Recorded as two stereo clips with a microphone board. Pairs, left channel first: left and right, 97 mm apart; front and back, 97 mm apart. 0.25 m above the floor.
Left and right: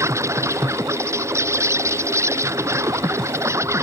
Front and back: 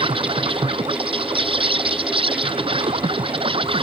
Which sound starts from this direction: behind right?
An insect, at 0.0 s.